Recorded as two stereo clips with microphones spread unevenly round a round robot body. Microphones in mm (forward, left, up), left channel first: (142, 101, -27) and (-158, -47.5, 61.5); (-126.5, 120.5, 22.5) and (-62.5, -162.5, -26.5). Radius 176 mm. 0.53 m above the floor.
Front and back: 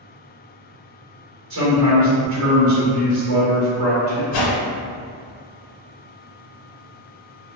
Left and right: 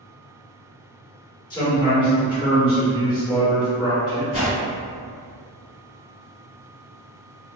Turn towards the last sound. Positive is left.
turn(degrees=40)